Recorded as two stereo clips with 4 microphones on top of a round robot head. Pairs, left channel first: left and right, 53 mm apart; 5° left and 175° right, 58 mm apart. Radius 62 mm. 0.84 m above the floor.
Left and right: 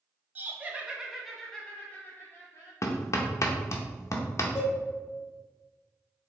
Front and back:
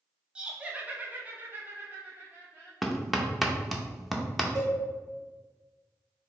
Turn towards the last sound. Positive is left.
turn(degrees=145)